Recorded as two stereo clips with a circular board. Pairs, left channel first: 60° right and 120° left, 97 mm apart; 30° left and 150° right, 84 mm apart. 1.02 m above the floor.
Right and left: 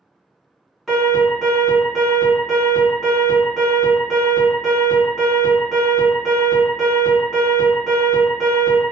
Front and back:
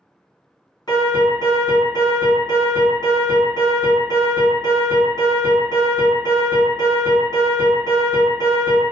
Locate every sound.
0.9 s an alarm: 30° left, 1.7 m